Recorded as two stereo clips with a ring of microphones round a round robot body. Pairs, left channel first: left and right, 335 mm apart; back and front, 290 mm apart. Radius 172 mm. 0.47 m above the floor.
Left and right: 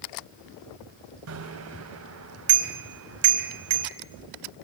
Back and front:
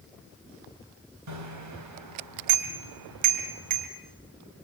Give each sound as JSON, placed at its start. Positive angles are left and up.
{"t": 1.3, "sound": "a bicycle bell", "azimuth_deg": -40, "distance_m": 2.0}